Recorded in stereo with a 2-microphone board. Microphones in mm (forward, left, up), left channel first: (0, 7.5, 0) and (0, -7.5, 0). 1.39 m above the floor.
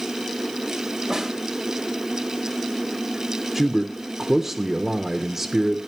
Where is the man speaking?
35° right (ahead or behind), 0.7 m.